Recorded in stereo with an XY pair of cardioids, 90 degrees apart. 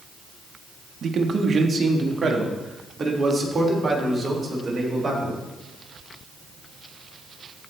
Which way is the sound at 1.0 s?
55° right.